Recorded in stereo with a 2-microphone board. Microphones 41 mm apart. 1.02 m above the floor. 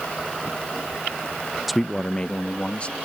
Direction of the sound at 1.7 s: Centre (ahead or behind).